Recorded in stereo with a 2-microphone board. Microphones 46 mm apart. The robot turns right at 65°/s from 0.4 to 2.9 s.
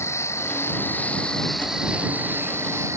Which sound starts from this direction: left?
An insect, at 0.0 s.